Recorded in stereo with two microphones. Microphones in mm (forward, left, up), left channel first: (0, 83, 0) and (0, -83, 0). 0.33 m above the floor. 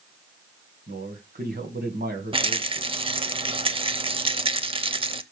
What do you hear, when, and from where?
0.9 s a man speaking: 65° right (ahead or behind), 2 m
2.3 s a rattle: 30° right (ahead or behind), 0.6 m